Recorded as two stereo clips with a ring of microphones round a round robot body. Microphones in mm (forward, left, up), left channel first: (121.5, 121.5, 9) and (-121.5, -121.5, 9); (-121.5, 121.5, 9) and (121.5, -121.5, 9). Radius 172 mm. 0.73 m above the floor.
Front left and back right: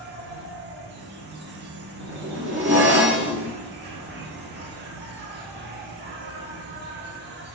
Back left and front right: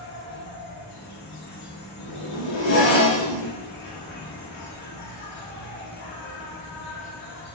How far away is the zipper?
About 2 m.